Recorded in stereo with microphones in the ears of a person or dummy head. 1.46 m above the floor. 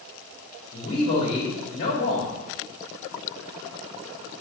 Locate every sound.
0.7 s a man speaking: 60° left (ahead or behind), 2.5 m